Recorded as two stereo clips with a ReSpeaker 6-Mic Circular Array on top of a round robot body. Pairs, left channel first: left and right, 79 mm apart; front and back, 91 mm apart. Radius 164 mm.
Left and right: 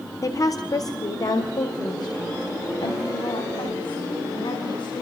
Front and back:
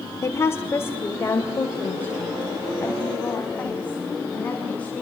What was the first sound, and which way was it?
A woman speaking, 55° left.